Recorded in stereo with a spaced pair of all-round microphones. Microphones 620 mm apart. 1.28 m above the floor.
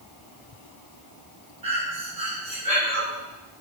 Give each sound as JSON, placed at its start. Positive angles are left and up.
{"t": 1.6, "sound": "breathing", "side_deg": -75, "distance_m": 5.5}